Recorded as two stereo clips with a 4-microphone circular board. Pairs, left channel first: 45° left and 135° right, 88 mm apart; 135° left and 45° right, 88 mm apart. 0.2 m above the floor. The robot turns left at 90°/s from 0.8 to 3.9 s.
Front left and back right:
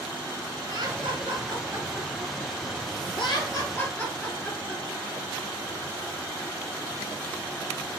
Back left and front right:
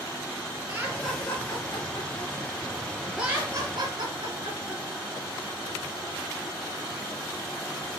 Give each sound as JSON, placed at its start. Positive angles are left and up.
{"t": 0.7, "sound": "laughter", "azimuth_deg": -115, "distance_m": 4.0}